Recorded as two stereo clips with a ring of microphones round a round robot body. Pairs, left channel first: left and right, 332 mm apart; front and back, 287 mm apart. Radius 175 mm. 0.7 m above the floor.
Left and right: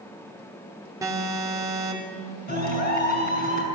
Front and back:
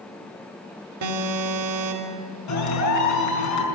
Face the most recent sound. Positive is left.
turn(degrees=25)